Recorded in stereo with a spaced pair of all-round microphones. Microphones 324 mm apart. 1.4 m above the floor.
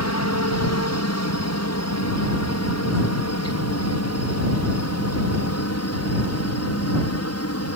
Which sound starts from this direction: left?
A helicopter, at 0.0 s.